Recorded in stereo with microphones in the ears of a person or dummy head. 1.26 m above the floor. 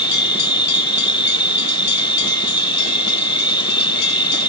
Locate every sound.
0.0 s an insect: 25° left (ahead or behind)